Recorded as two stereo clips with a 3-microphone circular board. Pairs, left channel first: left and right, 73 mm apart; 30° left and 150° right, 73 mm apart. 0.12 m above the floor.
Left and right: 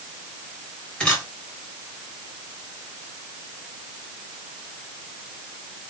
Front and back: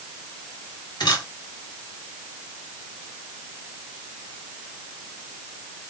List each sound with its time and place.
1.0 s a camera shutter: 10° left, 3 m